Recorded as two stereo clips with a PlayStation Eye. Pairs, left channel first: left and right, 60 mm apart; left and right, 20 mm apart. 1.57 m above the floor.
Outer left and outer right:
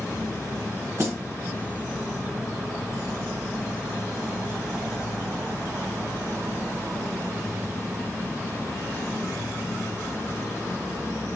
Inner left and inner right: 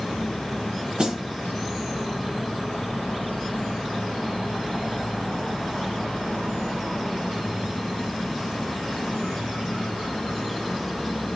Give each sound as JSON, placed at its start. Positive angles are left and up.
{"t": 1.0, "sound": "a snare drum", "side_deg": -50, "distance_m": 1.5}